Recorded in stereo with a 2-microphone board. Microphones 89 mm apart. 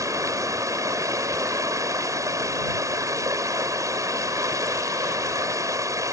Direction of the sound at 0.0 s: 40° right (ahead or behind).